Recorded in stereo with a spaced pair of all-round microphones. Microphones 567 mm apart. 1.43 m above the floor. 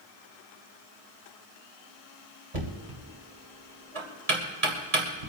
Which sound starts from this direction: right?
Knocking, at 2.5 s.